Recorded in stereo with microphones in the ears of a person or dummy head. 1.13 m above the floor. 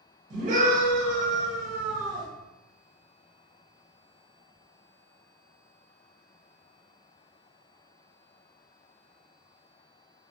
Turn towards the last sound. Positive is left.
turn(degrees=-45)  # may be behind; listen again after turning